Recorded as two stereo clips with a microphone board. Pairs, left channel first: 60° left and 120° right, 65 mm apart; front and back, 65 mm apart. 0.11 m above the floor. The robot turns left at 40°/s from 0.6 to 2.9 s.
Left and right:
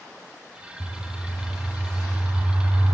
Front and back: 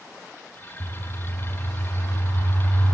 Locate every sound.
0.8 s a bird: 10° left, 5 m; by 2.9 s 70° right, 5 m